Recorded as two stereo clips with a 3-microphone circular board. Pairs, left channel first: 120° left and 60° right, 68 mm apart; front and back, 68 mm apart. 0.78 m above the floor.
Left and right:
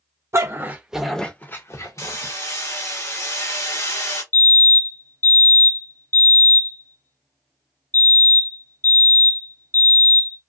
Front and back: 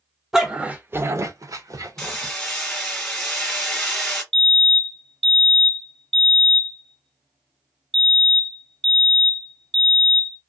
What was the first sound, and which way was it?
A dog barking, 95° right.